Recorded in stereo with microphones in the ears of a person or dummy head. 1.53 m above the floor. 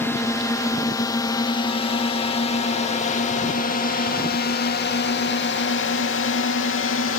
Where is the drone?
10° left (ahead or behind); by 7.2 s 65° left (ahead or behind).